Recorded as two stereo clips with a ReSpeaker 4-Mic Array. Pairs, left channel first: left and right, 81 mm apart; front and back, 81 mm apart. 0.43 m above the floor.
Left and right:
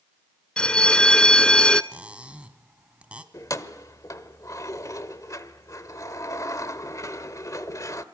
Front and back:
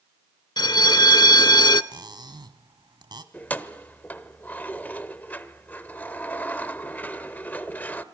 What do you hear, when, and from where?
0.6 s a bell: 10° left, 0.7 m
1.9 s cutlery clinking: 165° right, 1.7 m
3.3 s keys jangling: 60° left, 1.2 m